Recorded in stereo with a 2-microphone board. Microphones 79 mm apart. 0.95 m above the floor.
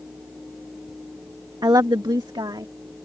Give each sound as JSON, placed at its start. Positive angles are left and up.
{"t": 1.6, "sound": "a woman speaking", "side_deg": -60}